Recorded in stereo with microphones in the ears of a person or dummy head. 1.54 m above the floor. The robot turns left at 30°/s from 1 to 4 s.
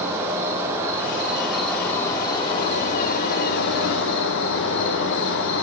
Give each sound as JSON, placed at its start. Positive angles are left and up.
{"t": 0.0, "sound": "an insect", "azimuth_deg": -165, "distance_m": 0.7}